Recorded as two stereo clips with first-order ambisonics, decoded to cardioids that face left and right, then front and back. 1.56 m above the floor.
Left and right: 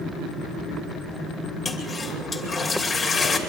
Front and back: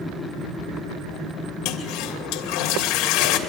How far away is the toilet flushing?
About 2.5 m.